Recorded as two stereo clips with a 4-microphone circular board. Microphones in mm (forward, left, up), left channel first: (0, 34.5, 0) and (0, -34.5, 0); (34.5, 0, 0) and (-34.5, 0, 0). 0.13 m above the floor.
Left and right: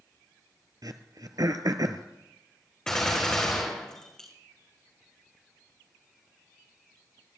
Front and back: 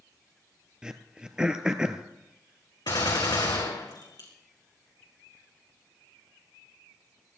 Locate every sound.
0.8 s throat clearing: 100° right, 1.0 m
2.9 s a gunshot: 10° left, 3.5 m